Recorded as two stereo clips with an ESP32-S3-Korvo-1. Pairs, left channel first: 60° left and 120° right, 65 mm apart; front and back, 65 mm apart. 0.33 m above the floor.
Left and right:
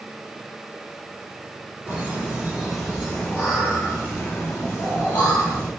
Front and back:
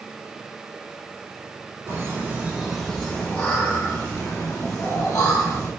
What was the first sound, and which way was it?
Laughter, straight behind.